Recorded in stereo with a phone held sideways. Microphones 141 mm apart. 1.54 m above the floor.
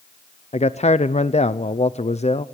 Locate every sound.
0.5 s a man speaking: 50° left (ahead or behind), 0.6 m